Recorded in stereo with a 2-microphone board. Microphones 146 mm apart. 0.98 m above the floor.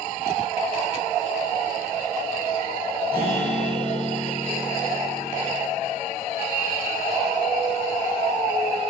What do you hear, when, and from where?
3.1 s a guitar: 85° right, 1.4 m